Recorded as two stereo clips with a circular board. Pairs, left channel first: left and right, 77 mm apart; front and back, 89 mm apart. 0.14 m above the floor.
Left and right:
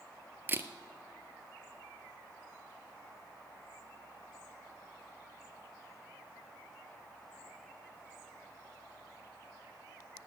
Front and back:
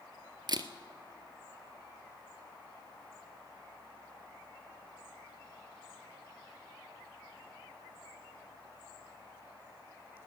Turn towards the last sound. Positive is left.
turn(degrees=-150)